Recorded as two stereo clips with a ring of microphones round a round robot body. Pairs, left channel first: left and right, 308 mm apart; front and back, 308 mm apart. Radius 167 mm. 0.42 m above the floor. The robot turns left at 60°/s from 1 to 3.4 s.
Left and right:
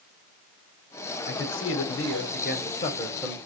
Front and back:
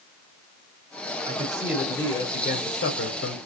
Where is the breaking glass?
I don't hear breaking glass.